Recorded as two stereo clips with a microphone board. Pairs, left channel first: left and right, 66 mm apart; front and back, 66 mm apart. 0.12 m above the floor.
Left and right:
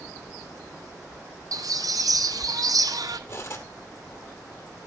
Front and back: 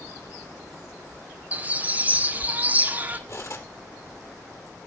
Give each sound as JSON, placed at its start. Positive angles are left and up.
{"t": 1.5, "sound": "a bird", "azimuth_deg": -115, "distance_m": 0.9}
{"t": 3.3, "sound": "cutlery clinking", "azimuth_deg": 40, "distance_m": 2.0}